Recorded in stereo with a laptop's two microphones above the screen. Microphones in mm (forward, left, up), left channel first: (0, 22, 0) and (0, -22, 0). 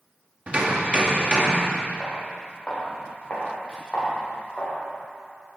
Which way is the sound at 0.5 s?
30° right (ahead or behind).